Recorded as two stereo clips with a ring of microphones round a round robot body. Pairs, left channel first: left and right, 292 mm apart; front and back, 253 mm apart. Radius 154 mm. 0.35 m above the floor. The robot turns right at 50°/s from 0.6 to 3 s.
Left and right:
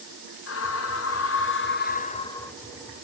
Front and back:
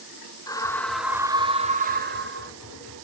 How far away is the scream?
About 1.3 m.